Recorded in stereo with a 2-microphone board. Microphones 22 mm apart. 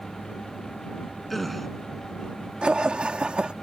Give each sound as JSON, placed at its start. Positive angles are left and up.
{"t": 1.3, "sound": "a gasp", "side_deg": 5}
{"t": 2.6, "sound": "laughter", "side_deg": -50}